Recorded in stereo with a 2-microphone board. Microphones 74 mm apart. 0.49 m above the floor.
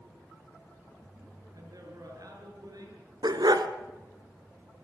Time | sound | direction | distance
1.5 | a man speaking | 60° right (ahead or behind) | 7.5 m
3.2 | a dog barking | 80° right | 1.8 m